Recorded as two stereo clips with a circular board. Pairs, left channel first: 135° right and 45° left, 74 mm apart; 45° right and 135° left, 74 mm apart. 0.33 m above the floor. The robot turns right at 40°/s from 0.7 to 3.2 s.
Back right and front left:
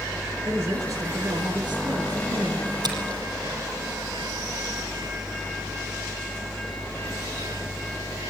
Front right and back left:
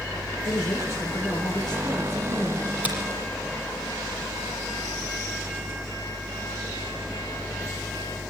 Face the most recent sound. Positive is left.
turn(degrees=80)